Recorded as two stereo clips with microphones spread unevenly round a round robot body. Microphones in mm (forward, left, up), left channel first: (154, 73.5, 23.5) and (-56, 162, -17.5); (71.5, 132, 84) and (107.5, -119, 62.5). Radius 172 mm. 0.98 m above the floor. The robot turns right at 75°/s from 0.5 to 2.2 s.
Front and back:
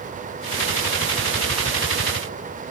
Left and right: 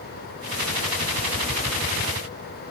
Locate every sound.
Only background noise.